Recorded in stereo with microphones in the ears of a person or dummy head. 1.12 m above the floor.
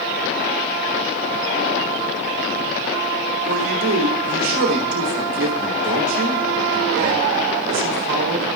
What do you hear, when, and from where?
3.5 s a man speaking: 80° right, 3 m